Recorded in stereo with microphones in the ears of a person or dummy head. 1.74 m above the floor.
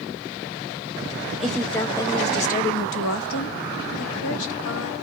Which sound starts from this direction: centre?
A woman speaking, at 1.4 s.